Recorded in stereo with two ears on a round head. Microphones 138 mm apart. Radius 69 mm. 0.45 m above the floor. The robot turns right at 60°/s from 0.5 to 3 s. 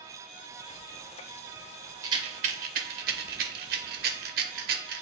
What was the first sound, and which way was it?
A rattle, 25° right (ahead or behind).